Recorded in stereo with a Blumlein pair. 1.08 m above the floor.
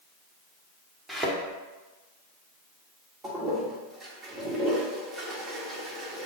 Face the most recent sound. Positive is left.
turn(degrees=-20)